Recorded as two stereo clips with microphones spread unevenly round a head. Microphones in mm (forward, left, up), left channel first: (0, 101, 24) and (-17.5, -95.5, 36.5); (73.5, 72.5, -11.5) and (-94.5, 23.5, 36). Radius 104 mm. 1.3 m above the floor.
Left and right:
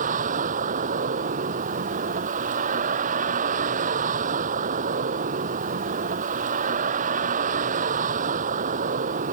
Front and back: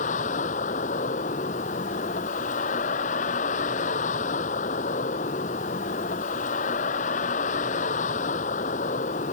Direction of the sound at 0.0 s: 40° right.